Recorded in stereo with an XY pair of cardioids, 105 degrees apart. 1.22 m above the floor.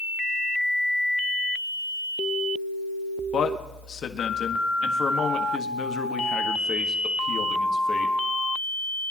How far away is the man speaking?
About 1.7 m.